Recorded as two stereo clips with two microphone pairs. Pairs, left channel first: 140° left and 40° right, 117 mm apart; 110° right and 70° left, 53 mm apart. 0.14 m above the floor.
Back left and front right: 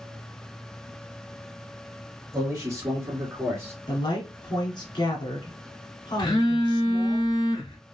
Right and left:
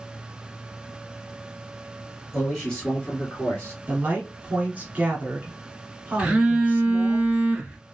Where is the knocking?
No knocking in this recording.